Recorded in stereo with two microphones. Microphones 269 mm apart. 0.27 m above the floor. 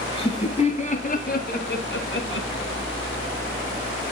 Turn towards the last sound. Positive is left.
turn(degrees=55)  # may be behind; listen again after turning